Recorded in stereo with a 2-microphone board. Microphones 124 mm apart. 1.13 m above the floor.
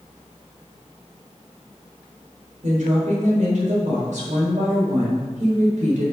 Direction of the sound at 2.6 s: 85° right.